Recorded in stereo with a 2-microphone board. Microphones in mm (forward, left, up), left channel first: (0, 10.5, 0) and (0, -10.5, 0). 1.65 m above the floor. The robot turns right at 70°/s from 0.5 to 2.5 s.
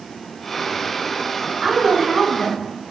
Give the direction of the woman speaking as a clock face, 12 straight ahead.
1 o'clock.